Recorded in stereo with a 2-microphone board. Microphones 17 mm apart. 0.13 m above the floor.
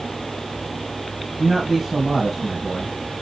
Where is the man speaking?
15° right (ahead or behind), 3.5 m.